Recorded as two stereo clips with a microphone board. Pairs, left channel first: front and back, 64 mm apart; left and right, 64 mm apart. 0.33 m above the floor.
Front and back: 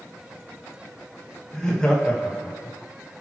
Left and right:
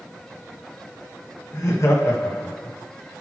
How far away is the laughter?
About 1.8 m.